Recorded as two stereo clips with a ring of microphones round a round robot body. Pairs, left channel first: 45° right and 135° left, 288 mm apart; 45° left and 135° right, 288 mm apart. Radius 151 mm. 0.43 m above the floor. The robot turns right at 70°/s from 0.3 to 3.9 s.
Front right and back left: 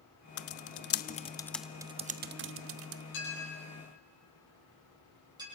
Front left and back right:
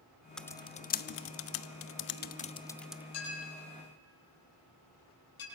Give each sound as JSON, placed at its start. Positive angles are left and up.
{"t": 0.4, "sound": "typing on a keyboard", "azimuth_deg": -40, "distance_m": 0.7}
{"t": 3.1, "sound": "a clink", "azimuth_deg": 5, "distance_m": 7.5}